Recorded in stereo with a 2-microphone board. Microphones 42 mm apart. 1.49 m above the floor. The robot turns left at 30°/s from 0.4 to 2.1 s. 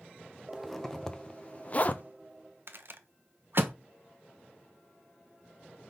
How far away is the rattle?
About 0.7 m.